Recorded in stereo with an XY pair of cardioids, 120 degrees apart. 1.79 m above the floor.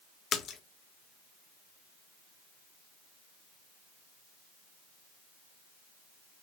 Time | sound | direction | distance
0.3 | a splash | 50° left | 1.1 m